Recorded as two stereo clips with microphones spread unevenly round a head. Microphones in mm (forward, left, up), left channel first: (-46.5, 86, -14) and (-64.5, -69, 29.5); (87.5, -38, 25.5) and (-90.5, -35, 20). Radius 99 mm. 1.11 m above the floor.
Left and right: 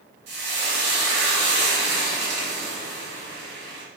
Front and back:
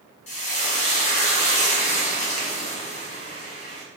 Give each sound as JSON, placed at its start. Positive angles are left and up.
{"t": 0.3, "sound": "frying", "azimuth_deg": -55, "distance_m": 1.1}